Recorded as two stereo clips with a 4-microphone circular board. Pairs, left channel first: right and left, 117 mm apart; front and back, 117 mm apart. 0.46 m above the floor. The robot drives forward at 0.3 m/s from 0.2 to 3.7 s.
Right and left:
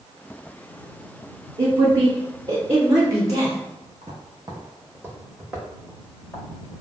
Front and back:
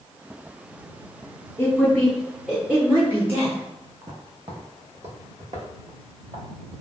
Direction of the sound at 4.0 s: 125° left.